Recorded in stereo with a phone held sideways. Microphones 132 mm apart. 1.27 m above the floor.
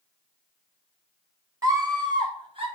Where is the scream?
25° right (ahead or behind), 2.0 m; by 2.7 s 45° right (ahead or behind), 1.9 m.